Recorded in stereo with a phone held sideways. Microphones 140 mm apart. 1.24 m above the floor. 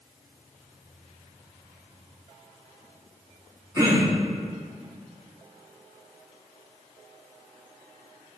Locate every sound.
3.8 s throat clearing: 25° right (ahead or behind), 3 m